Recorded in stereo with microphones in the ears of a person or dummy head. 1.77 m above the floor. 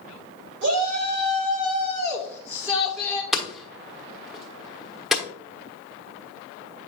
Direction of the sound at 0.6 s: 65° right (ahead or behind).